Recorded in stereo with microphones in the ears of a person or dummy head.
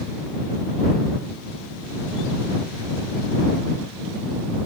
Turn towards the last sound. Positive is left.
No sound to turn to.